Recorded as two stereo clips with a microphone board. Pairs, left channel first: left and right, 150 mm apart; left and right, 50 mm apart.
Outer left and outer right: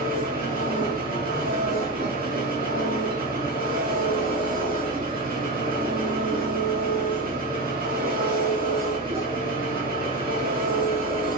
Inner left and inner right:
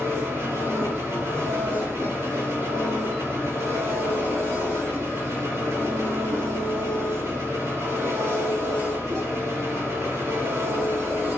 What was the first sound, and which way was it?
An engine running, 70° right (ahead or behind).